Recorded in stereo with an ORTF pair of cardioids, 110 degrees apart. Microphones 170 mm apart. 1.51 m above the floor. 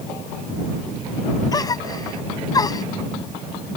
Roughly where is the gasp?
Ahead.